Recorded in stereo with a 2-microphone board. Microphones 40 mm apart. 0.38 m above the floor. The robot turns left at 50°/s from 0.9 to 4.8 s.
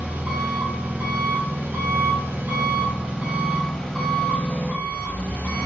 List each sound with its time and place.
0.0 s an engine running: 35° right, 0.9 m; by 5.7 s 130° left, 0.9 m